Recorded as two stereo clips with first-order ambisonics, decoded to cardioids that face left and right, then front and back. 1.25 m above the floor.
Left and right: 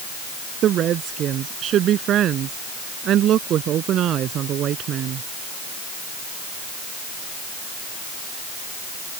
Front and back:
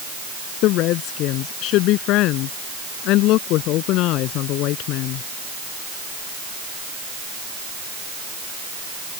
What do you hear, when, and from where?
0.6 s a woman speaking: 35° right